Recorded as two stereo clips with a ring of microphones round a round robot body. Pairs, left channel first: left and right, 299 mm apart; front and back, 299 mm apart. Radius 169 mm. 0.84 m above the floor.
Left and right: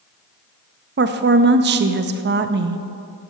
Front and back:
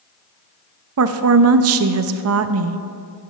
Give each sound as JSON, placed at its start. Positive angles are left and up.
{"t": 1.0, "sound": "a woman speaking", "azimuth_deg": -145, "distance_m": 0.6}